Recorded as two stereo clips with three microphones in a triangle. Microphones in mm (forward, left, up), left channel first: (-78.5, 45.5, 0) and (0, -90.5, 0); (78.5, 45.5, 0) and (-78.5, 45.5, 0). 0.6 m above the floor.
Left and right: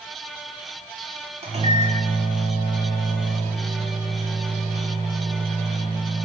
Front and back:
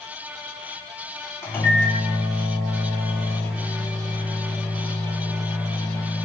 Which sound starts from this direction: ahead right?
A microwave, at 1.4 s.